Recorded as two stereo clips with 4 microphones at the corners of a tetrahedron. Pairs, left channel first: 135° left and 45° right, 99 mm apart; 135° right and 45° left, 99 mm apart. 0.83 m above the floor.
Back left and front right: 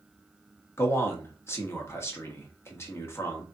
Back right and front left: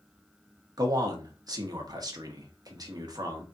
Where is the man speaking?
80° left, 1.2 m.